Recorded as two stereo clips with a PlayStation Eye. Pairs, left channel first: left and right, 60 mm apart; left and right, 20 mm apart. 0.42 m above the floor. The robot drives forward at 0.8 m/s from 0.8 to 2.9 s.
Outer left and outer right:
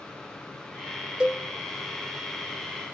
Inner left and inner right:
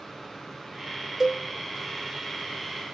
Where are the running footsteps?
I don't hear running footsteps.